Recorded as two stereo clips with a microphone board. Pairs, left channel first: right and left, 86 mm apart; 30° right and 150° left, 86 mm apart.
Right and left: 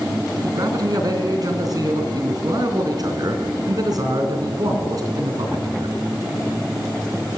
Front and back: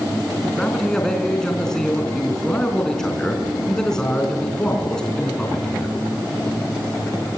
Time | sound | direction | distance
0.4 | a man speaking | 50° left | 3.5 m